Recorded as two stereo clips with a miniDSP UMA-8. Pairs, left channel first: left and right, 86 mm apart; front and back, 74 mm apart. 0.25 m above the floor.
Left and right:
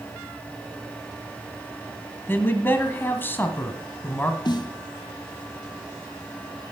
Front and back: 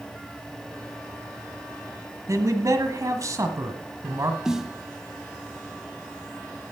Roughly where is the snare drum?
Left.